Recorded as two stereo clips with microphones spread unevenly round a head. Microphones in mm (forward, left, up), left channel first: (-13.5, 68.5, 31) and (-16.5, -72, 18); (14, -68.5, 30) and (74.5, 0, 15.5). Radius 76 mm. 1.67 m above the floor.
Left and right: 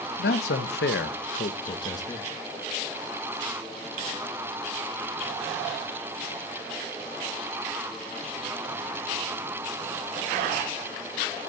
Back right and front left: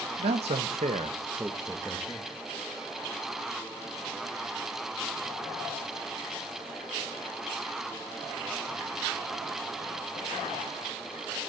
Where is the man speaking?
65° left, 2 m; by 2.3 s 160° left, 2 m.